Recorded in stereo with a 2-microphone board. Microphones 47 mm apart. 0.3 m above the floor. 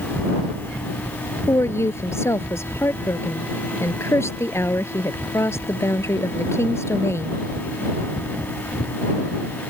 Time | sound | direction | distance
1.5 | a woman speaking | 75° left (ahead or behind) | ?